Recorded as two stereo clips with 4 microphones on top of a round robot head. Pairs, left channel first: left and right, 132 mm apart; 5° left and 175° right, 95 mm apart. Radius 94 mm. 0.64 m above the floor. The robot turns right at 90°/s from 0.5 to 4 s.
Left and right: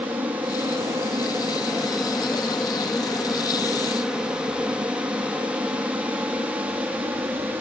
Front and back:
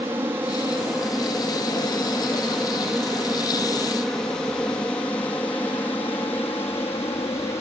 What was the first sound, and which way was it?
An aircraft, 150° right.